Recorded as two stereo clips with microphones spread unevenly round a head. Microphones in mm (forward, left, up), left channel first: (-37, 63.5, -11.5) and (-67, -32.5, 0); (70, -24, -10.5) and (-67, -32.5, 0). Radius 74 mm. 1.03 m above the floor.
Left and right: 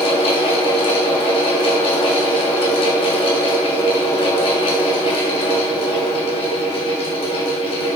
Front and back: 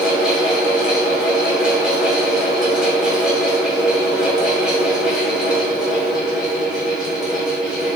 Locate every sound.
0.0 s a fan: 100° left, 2.5 m